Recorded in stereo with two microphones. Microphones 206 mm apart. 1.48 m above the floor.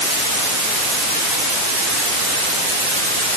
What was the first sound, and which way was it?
Only background noise.